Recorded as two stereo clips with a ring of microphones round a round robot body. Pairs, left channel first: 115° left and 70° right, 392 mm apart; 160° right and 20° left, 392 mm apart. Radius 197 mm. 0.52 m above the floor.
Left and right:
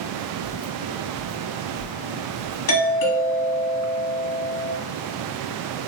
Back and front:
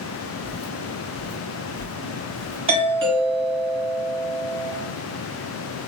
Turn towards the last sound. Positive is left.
turn(degrees=90)